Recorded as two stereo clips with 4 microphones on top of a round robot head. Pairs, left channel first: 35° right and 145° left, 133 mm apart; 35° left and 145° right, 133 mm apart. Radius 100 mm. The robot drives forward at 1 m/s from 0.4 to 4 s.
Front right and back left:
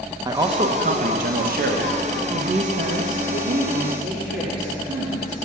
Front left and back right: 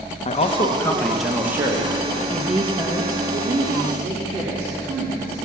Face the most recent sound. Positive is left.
turn(degrees=165)